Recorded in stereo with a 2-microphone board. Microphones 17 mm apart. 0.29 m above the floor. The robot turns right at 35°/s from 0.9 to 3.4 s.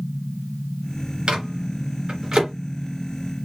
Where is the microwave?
70° right (ahead or behind), 3 m; by 2.5 s 30° right (ahead or behind), 3 m.